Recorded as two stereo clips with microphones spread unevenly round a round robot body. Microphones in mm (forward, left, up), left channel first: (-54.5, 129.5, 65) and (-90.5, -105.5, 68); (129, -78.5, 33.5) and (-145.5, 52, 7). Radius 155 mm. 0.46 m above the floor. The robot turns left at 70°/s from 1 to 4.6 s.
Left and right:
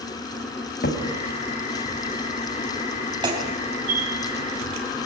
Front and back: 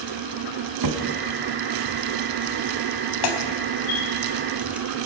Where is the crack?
130° left, 3.5 m; by 5.1 s 120° right, 3.5 m.